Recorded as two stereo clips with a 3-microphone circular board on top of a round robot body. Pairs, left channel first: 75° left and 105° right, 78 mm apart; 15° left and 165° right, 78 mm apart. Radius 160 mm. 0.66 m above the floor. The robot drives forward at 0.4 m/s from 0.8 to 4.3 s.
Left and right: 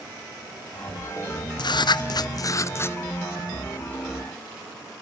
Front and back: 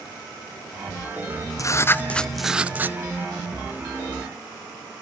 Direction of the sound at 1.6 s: 60° left.